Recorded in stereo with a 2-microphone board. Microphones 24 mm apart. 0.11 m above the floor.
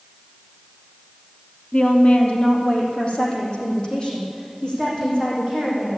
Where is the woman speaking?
50° left (ahead or behind), 3 m; by 5.9 s 35° left (ahead or behind), 8.5 m.